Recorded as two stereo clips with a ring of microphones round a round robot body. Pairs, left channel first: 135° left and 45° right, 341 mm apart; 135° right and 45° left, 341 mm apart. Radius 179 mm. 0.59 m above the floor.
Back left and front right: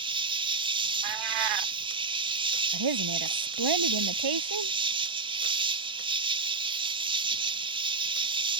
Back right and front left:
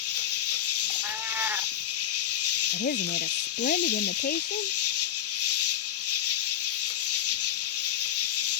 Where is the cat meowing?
40° right.